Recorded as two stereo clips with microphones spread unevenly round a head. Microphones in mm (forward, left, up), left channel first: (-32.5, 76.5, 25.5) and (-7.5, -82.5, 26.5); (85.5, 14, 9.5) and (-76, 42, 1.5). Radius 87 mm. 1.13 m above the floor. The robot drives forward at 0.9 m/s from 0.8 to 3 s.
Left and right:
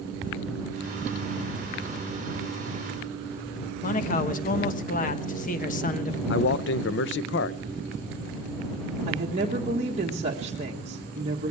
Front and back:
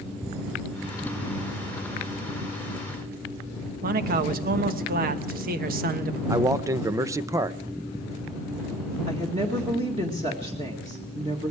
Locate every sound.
3.8 s a man speaking: 140° left, 1.2 m
6.3 s a man speaking: 100° left, 0.7 m
9.1 s a woman speaking: 130° right, 1.6 m